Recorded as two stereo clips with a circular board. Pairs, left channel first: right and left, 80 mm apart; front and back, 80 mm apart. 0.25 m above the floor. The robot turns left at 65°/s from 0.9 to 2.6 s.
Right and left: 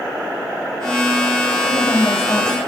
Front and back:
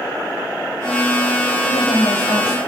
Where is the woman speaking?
5° left, 6 m; by 2.6 s 55° right, 6 m.